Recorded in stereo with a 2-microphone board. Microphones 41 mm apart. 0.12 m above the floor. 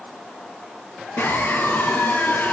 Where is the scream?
50° left (ahead or behind), 3 m.